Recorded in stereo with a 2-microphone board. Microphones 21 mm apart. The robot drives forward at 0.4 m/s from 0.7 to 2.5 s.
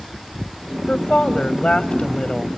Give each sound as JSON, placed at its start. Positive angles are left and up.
{"t": 0.9, "sound": "a woman speaking", "side_deg": 60, "distance_m": 1.8}